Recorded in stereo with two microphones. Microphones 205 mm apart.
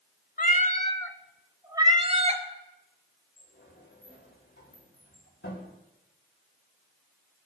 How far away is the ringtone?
I don't hear a ringtone.